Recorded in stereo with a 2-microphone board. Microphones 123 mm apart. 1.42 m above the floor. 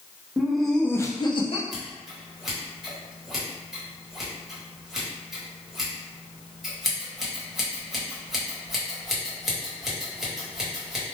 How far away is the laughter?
About 0.7 m.